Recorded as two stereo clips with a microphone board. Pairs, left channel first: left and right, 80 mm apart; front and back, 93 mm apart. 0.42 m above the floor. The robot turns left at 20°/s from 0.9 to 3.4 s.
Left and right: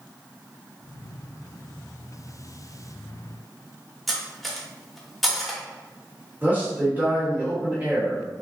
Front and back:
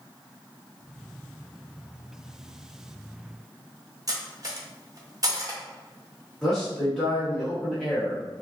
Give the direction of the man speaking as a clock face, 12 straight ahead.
3 o'clock.